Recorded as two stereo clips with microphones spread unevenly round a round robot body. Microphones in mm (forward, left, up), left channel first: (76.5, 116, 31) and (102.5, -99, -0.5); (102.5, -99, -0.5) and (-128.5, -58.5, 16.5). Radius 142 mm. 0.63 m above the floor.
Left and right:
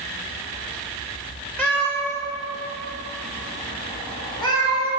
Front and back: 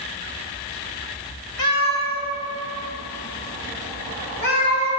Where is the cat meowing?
10° left, 1.6 m; by 4.9 s 25° left, 5 m.